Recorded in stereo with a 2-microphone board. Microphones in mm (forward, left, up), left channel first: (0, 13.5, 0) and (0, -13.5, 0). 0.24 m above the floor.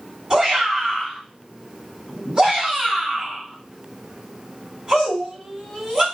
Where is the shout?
10° right (ahead or behind), 1.6 m.